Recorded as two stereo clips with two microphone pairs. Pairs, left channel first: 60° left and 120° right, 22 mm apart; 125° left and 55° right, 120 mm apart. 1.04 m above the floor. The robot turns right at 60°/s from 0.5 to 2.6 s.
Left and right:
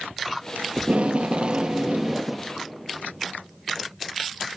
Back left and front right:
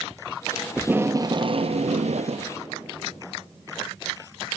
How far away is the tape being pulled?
About 0.6 m.